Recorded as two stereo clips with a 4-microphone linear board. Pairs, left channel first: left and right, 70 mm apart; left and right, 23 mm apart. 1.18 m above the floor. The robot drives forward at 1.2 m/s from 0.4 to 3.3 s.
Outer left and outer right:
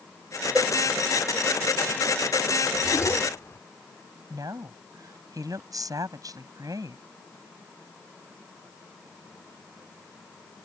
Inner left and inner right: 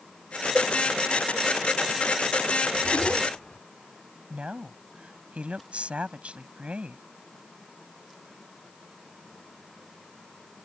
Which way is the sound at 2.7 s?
55° left (ahead or behind).